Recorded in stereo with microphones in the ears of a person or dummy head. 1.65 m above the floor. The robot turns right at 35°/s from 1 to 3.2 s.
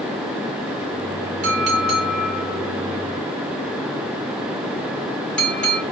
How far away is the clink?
About 2.5 m.